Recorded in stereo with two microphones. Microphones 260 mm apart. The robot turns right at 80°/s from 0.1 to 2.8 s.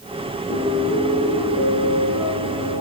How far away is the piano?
About 2.5 m.